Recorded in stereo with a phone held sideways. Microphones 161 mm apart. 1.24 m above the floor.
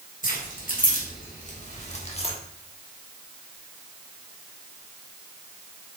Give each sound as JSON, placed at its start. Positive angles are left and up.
{"t": 0.2, "sound": "keys jangling", "side_deg": 60, "distance_m": 2.5}